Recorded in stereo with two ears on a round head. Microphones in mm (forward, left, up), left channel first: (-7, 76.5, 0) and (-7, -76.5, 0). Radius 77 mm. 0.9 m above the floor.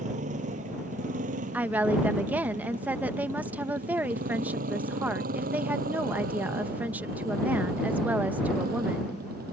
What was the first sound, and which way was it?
A motorcycle, 45° right (ahead or behind).